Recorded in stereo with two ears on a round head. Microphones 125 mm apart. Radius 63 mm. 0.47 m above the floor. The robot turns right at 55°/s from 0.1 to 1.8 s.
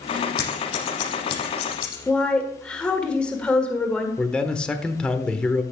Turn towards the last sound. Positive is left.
turn(degrees=5)  # may be behind; listen again after turning